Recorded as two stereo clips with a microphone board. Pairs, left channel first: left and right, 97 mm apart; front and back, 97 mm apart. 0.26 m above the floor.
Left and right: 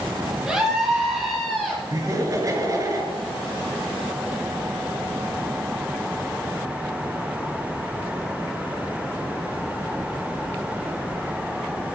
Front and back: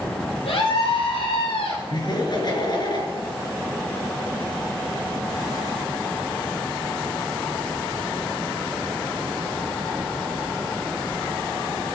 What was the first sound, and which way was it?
A scream, 10° right.